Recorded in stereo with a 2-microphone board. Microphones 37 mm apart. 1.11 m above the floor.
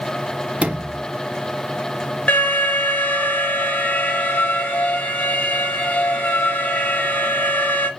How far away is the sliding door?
About 0.7 m.